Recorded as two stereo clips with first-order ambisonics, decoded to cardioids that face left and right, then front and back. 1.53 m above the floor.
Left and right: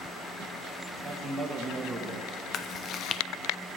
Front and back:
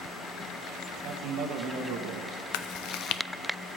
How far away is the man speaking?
About 1.7 m.